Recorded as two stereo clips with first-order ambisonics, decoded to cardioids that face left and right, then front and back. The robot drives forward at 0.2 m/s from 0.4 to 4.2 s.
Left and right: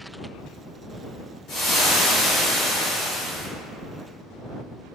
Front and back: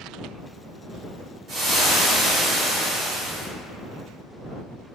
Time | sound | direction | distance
1.5 | frying | 125° left | 1.5 m